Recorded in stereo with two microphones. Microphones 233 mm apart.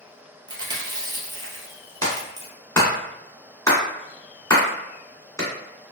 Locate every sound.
0.5 s chewing: 20° right (ahead or behind), 1.0 m
2.0 s a clap: 15° left (ahead or behind), 1.7 m